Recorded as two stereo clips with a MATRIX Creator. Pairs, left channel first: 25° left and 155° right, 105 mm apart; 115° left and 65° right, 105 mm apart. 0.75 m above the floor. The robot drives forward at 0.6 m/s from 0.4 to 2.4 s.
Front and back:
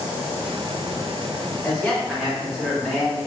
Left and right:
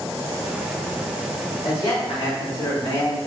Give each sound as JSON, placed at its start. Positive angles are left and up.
{"t": 1.6, "sound": "a man speaking", "azimuth_deg": 100, "distance_m": 1.6}